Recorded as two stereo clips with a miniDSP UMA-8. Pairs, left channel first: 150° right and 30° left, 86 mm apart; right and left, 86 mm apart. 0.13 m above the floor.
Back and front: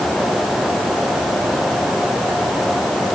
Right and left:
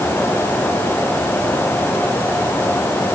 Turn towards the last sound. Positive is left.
No sound to turn to.